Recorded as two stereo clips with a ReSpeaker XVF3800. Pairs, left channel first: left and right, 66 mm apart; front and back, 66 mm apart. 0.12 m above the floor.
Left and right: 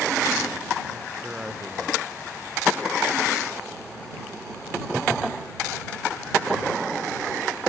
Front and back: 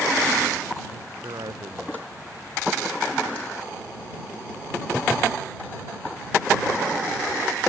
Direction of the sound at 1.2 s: 170° right.